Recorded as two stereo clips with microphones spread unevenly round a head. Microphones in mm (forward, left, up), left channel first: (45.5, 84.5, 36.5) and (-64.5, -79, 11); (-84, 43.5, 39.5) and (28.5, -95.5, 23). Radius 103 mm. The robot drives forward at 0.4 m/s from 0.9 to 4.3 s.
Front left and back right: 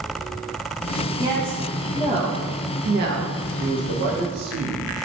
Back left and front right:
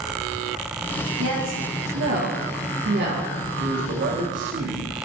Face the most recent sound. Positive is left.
turn(degrees=-100)